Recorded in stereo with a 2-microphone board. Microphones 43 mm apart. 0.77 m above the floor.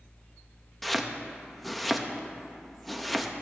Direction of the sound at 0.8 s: Centre (ahead or behind).